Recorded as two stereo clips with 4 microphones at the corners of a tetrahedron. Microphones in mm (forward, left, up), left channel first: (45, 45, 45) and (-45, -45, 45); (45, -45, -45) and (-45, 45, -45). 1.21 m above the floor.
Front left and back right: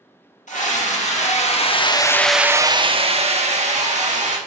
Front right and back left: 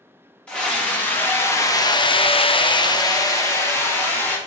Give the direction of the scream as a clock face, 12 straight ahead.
11 o'clock.